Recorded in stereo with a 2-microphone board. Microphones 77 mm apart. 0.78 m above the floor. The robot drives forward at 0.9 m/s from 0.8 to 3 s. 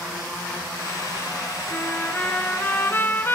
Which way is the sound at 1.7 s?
15° left (ahead or behind).